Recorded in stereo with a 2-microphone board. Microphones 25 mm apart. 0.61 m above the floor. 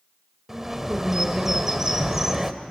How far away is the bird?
About 1.2 m.